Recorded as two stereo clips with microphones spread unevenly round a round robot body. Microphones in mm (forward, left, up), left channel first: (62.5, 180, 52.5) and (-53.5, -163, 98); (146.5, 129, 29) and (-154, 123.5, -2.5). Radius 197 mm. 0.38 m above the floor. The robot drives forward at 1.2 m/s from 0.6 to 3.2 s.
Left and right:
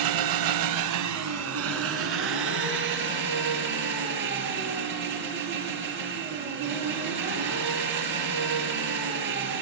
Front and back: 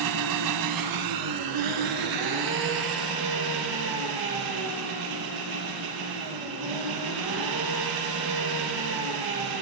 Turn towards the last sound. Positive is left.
turn(degrees=-170)